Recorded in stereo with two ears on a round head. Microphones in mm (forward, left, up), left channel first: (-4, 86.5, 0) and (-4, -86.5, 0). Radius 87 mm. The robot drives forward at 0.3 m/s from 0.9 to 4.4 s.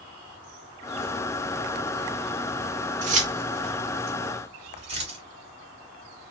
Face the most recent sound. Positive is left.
turn(degrees=-30)  # may be behind; listen again after turning